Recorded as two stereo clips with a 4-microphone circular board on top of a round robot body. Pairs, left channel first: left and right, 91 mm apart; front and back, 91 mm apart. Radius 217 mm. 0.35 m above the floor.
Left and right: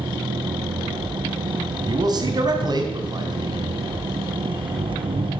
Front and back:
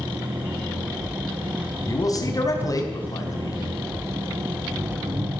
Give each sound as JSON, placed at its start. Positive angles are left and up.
{"t": 0.0, "sound": "an engine running", "azimuth_deg": -110, "distance_m": 3.5}
{"t": 1.9, "sound": "a man speaking", "azimuth_deg": -50, "distance_m": 4.0}